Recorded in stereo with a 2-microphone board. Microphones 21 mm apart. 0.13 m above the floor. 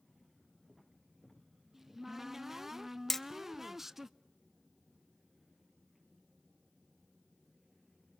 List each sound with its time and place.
1.7 s a cupboard door: 15° right (ahead or behind), 0.5 m
3.1 s hammering: 10° left (ahead or behind), 0.7 m